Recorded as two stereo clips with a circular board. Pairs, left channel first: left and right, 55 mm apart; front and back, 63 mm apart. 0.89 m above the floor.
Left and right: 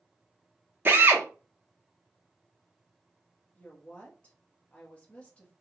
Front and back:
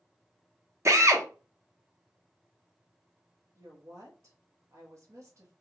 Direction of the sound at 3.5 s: 155° left.